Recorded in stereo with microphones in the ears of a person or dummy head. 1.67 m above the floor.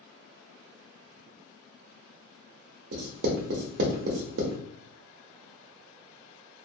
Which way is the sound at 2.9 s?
65° right (ahead or behind).